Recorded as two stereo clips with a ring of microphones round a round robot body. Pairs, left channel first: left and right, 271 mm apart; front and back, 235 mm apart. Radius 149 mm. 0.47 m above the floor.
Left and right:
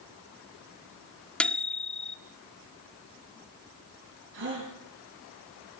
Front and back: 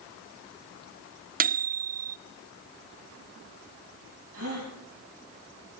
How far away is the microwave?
About 0.6 m.